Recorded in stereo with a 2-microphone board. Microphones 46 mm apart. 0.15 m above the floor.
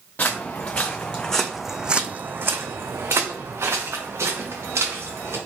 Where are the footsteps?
40° left (ahead or behind), 1.1 m; by 5.4 s 80° right, 2.0 m.